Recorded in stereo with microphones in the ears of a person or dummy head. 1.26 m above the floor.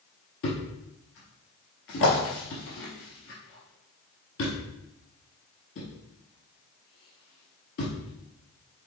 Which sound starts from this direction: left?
A thud, at 0.4 s.